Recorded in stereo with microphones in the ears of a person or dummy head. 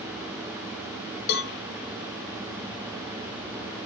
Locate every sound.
1.3 s a cowbell: 60° left (ahead or behind), 0.5 m